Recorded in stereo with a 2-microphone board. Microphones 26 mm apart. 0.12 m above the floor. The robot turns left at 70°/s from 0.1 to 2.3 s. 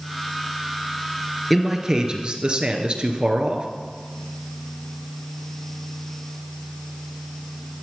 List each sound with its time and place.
1.5 s a man speaking: straight ahead, 1.8 m; by 3.7 s 55° right, 1.8 m